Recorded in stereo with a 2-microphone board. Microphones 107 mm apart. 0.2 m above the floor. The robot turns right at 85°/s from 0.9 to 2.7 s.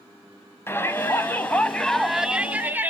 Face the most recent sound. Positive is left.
turn(degrees=-15)  # may be behind; listen again after turning